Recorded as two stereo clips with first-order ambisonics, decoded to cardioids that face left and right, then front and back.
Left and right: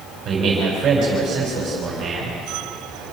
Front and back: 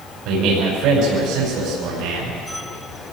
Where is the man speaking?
150° right, 5.5 m.